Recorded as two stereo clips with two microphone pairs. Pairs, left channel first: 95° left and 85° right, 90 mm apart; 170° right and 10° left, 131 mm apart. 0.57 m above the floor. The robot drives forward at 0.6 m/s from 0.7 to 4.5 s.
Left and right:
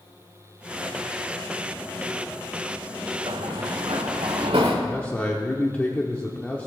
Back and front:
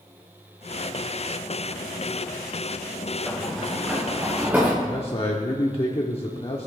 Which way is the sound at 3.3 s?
85° right.